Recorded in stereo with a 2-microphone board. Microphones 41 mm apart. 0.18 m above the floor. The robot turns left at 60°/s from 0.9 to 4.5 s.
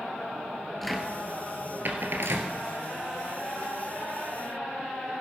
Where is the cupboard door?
Centre (ahead or behind), 1.5 m; by 2.5 s 70° right (ahead or behind), 1.5 m.